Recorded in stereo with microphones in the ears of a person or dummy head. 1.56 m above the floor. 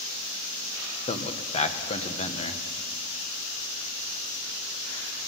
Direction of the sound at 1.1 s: 30° left (ahead or behind).